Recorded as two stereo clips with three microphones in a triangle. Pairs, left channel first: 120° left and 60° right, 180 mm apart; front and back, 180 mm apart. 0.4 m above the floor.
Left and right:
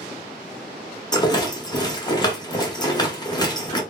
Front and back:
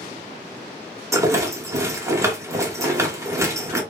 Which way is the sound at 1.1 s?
135° left.